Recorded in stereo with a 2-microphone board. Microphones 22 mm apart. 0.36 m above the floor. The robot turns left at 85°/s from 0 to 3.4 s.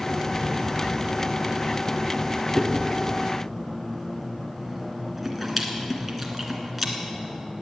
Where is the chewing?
65° left (ahead or behind), 2 m; by 6.9 s 5° right (ahead or behind), 2 m.